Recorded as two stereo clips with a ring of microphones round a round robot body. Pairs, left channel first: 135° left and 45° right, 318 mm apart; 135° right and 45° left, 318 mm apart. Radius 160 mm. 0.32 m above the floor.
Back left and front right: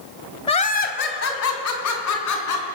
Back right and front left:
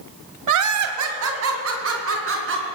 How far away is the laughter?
About 1.6 m.